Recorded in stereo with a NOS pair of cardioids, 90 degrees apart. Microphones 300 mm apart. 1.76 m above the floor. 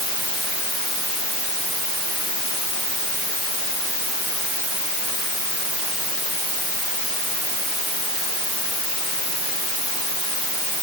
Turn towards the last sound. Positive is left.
No sound to turn to.